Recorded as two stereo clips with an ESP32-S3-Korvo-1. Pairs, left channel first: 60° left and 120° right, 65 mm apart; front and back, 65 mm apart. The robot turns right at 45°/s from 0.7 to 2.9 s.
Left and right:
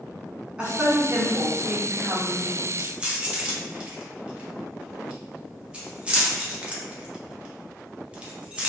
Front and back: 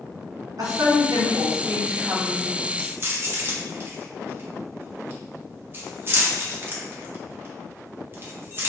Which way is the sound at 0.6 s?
165° left.